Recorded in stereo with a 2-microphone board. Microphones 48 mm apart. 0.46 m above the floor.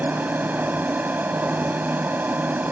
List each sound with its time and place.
0.0 s an aircraft: 45° right (ahead or behind)